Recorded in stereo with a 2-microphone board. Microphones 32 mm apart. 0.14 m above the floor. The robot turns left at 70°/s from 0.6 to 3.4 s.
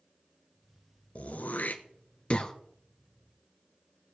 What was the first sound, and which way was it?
Throat clearing, 50° left (ahead or behind).